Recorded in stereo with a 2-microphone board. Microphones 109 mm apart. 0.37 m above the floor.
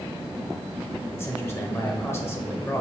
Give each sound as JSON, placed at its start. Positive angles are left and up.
{"t": 1.1, "sound": "a man speaking", "side_deg": 20, "distance_m": 1.1}